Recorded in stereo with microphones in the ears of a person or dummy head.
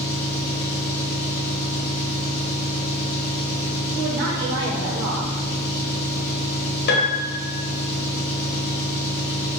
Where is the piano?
75° left (ahead or behind), 1.6 m.